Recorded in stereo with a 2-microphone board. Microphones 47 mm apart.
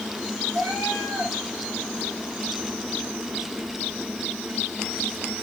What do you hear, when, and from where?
0.5 s a cat meowing: 60° right (ahead or behind), 4.5 m